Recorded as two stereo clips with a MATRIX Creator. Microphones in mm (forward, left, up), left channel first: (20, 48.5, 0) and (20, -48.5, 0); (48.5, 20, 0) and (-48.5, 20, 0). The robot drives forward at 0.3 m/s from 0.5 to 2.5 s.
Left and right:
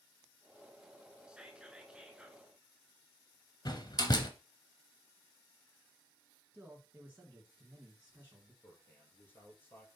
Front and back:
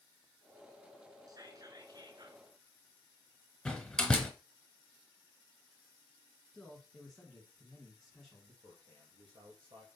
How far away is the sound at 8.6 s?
About 3 m.